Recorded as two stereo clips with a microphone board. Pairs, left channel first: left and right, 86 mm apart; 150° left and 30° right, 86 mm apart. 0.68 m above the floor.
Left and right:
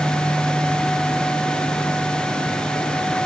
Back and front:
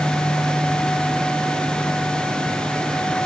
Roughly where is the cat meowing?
I don't hear a cat meowing.